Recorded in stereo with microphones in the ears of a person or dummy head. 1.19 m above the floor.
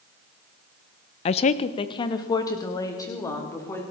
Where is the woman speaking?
25° left (ahead or behind), 0.5 m; by 3.8 s 20° left (ahead or behind), 4 m.